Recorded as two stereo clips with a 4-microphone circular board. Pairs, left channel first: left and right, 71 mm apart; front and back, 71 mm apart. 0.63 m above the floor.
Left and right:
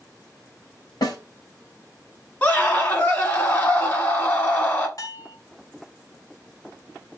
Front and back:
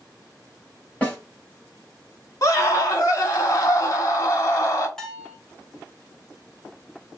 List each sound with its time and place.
1.0 s a snare drum: 70° left, 1.7 m
2.4 s a scream: 30° left, 1.3 m
5.0 s a bell: 80° left, 1.0 m